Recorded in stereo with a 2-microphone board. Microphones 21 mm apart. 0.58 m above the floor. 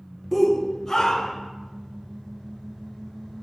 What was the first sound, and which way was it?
A shout, 5° left (ahead or behind).